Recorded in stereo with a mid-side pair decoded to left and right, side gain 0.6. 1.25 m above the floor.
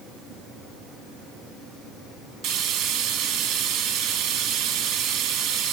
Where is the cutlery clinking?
No cutlery clinking in this recording.